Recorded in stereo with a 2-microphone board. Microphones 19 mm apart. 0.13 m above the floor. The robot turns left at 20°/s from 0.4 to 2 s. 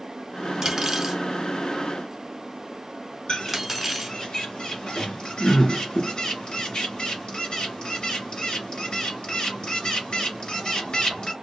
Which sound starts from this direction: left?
A bird, at 3.3 s.